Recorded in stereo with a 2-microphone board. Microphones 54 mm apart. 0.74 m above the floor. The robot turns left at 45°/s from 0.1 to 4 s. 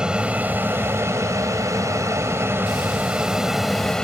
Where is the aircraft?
15° right; by 4.0 s 165° left.